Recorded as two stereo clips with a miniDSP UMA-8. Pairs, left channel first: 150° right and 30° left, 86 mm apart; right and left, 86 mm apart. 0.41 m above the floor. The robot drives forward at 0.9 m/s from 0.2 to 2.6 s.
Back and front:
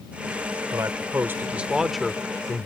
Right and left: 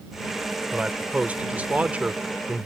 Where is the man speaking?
20° left; by 2.7 s 155° left.